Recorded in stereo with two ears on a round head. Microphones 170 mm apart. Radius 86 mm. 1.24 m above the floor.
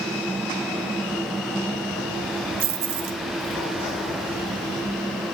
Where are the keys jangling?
50° right (ahead or behind), 1.0 m; by 5.3 s 80° right, 3.5 m.